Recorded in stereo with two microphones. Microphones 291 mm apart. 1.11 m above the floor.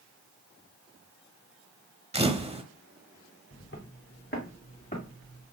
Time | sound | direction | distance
2.1 | a camera shutter | 20° right (ahead or behind) | 0.9 m
3.5 | footsteps | 40° left (ahead or behind) | 2.5 m